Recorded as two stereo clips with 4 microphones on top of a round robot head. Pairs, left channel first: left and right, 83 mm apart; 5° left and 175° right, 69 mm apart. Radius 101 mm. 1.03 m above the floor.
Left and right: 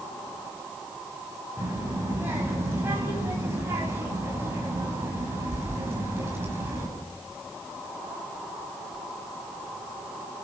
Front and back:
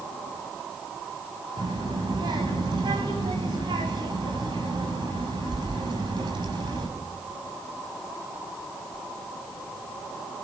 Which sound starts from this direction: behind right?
A child speaking, at 1.6 s.